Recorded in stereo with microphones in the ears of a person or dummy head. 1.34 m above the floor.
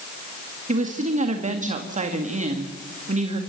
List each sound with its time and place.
0.7 s a woman speaking: 45° right (ahead or behind), 1.9 m